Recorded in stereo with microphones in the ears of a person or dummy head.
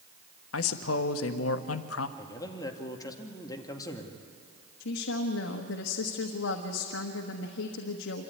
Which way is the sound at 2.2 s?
20° left (ahead or behind).